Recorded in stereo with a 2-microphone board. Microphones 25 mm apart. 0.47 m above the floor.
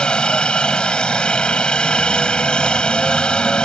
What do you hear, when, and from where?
0.0 s a helicopter: 40° left (ahead or behind)